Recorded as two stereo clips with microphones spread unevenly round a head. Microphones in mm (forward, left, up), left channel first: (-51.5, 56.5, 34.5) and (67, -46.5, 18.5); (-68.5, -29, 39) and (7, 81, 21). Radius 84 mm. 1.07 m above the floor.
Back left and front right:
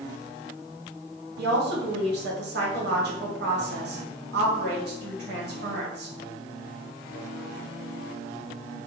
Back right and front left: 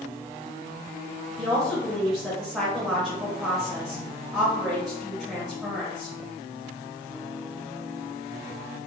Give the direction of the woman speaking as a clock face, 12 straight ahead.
1 o'clock.